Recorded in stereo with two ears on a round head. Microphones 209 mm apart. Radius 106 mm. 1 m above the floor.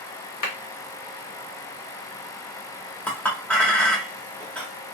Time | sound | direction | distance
0.4 | a clap | 70° left (ahead or behind) | 1.2 m
3.1 | a clink | 5° left (ahead or behind) | 0.9 m